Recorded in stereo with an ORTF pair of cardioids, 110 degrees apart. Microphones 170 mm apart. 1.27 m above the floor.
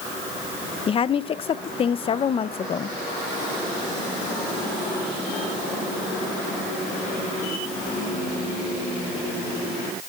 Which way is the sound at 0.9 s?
35° left.